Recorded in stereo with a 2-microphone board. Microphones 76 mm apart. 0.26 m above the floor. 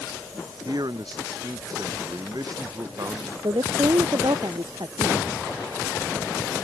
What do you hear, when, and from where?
0.7 s a man speaking: 60° right (ahead or behind); by 3.3 s 50° right (ahead or behind)
3.4 s a woman speaking: 70° right (ahead or behind)